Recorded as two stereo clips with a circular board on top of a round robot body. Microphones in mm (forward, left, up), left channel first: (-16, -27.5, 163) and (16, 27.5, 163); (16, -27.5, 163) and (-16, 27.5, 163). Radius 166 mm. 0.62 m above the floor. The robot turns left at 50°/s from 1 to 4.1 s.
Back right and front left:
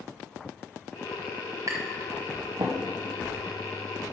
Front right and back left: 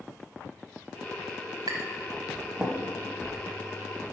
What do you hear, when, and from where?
1.7 s tapping: 95° left, 0.8 m; by 2.8 s 40° left, 0.8 m